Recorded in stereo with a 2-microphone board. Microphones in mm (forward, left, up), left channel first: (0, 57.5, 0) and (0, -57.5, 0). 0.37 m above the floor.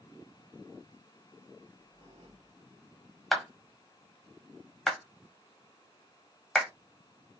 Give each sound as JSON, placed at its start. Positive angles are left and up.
{"t": 1.6, "sound": "a squeak", "side_deg": -50, "distance_m": 3.5}
{"t": 3.3, "sound": "a clap", "side_deg": 0, "distance_m": 1.7}